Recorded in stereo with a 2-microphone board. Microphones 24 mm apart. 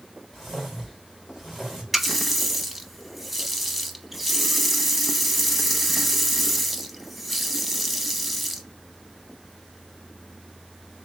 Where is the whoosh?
5° right (ahead or behind), 3 m.